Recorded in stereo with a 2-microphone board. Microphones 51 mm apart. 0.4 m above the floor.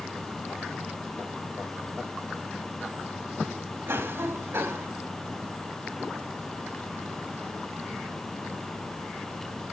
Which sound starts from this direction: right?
A cough, at 3.9 s.